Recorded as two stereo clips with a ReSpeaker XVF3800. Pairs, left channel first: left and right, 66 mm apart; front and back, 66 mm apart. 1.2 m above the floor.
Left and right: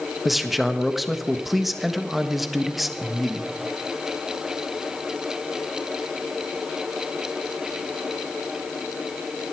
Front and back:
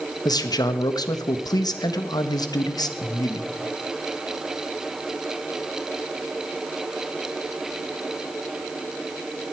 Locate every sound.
0.2 s a man speaking: straight ahead, 1.3 m